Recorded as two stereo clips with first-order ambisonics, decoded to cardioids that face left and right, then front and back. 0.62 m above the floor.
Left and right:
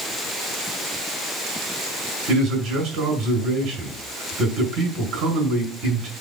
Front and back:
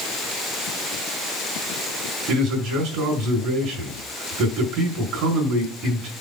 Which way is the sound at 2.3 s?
130° right.